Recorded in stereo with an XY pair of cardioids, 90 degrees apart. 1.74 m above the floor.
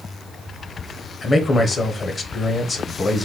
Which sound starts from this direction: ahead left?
A man speaking, at 1.2 s.